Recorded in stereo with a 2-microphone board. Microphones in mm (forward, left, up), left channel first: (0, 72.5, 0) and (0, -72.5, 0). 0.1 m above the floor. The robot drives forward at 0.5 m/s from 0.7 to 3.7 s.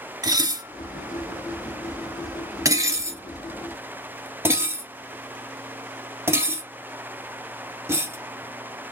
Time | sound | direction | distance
0.2 | dishes clattering | 25° right (ahead or behind) | 0.9 m